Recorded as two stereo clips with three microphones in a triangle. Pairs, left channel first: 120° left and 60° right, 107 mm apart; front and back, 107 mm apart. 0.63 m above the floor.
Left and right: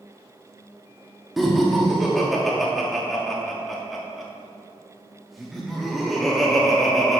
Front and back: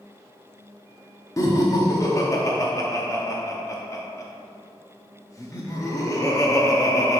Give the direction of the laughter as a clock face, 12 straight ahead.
11 o'clock.